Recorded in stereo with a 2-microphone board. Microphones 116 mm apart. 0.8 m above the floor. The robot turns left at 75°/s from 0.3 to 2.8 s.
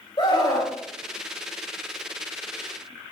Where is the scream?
40° left, 3 m; by 0.7 s 10° left, 3 m.